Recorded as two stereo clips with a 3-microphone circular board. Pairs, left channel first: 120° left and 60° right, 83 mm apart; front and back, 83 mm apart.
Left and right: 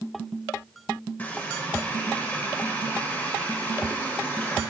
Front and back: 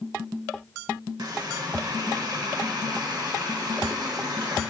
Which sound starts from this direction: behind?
A running tap, at 1.2 s.